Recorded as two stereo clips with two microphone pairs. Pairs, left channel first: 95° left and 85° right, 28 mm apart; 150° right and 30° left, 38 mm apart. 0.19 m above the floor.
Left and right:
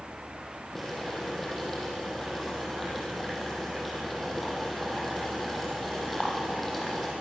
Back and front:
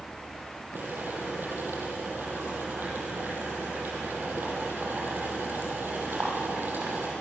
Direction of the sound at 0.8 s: 5° left.